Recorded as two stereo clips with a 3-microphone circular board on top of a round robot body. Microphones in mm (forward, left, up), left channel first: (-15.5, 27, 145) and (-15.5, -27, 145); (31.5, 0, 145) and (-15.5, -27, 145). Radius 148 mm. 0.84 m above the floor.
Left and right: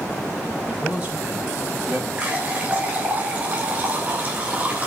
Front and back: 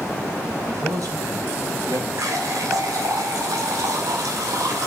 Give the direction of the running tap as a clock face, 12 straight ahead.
5 o'clock.